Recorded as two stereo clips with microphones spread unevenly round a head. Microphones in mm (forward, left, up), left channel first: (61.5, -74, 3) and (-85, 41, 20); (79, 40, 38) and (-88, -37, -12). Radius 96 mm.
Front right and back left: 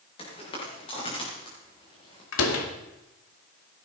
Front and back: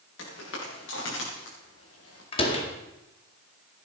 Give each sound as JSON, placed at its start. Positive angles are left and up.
{"t": 0.2, "sound": "footsteps", "azimuth_deg": 25, "distance_m": 7.5}
{"t": 2.3, "sound": "a door slam", "azimuth_deg": -30, "distance_m": 2.0}